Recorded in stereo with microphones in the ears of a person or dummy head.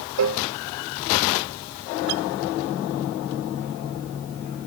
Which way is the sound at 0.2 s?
65° right (ahead or behind).